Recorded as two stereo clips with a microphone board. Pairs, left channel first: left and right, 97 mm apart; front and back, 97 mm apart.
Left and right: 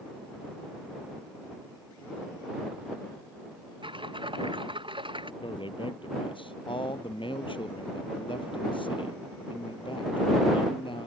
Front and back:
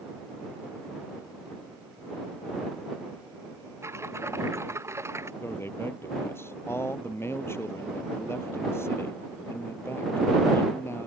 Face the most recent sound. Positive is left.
turn(degrees=65)